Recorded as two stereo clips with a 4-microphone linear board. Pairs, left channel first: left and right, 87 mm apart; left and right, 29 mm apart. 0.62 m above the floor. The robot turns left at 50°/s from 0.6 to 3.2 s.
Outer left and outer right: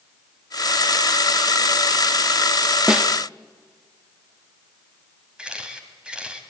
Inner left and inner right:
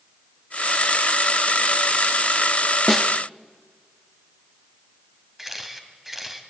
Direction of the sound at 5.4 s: 10° right (ahead or behind).